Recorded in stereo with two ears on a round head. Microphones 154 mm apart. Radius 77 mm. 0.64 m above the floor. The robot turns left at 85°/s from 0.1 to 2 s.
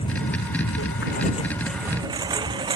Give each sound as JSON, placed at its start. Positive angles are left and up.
{"t": 0.0, "sound": "a lawn mower", "side_deg": 35}